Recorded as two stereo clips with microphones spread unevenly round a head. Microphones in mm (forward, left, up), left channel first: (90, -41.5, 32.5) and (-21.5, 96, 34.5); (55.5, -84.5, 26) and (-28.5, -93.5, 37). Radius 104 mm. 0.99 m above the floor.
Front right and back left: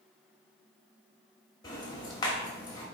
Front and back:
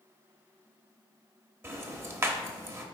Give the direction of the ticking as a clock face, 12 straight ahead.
4 o'clock.